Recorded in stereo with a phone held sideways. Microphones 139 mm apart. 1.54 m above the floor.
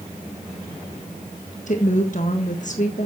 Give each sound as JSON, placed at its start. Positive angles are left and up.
{"t": 1.7, "sound": "a woman speaking", "side_deg": 55, "distance_m": 1.6}